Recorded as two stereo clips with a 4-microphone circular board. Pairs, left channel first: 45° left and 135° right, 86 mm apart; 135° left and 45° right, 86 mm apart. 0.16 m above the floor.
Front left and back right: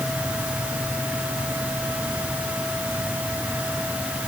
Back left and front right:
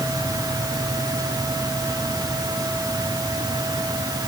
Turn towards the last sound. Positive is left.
No sound to turn to.